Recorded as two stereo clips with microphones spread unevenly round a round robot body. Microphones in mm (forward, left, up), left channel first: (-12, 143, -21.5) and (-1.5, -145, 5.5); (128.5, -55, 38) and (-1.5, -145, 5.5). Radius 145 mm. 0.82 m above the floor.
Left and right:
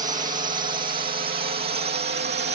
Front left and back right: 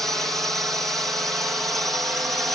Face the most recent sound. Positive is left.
turn(degrees=-75)